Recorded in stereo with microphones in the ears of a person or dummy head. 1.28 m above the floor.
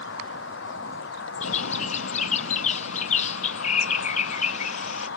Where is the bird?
40° left (ahead or behind).